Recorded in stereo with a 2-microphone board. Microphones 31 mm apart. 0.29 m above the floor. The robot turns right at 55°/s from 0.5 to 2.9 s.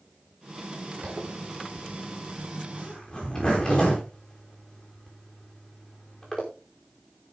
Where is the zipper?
80° right, 6 m; by 6.4 s 25° left (ahead or behind), 6 m.